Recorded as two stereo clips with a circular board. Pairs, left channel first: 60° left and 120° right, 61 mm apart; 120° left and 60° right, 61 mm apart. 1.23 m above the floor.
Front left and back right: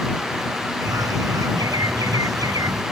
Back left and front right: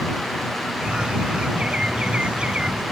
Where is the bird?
135° right.